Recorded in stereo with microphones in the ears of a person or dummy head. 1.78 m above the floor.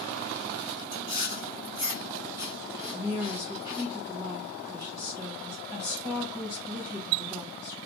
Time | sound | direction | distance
0.9 | chewing | 10° right (ahead or behind) | 1.9 m
2.9 | a woman speaking | 10° right (ahead or behind) | 1.9 m